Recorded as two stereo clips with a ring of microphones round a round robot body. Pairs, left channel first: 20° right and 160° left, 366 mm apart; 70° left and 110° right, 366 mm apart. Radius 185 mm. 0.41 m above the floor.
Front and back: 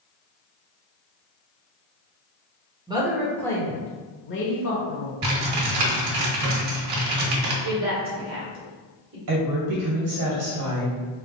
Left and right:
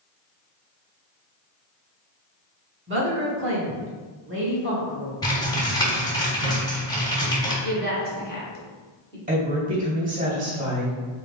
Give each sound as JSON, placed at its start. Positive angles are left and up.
{"t": 2.9, "sound": "a woman speaking", "azimuth_deg": -135, "distance_m": 1.1}
{"t": 5.2, "sound": "typing on a keyboard", "azimuth_deg": 145, "distance_m": 1.3}
{"t": 7.6, "sound": "a woman speaking", "azimuth_deg": 120, "distance_m": 1.7}
{"t": 9.3, "sound": "a woman speaking", "azimuth_deg": -175, "distance_m": 2.0}